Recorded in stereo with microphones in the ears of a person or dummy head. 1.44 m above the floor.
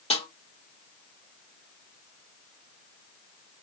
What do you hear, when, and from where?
0.1 s a snare drum: 30° left (ahead or behind), 1.4 m